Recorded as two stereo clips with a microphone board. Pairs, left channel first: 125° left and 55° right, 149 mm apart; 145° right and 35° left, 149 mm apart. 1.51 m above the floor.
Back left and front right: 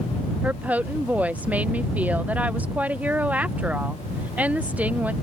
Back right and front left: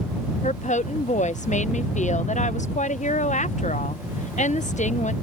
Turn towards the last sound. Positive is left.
turn(degrees=-135)